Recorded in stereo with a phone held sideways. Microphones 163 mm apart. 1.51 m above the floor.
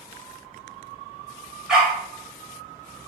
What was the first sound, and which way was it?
A dog barking, 5° right (ahead or behind).